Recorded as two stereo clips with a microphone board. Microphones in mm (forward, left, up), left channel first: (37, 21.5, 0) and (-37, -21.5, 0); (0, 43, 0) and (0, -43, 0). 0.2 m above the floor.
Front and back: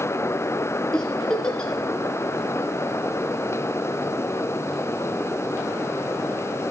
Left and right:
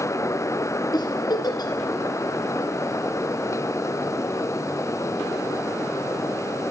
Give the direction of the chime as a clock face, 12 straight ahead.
I don't hear a chime.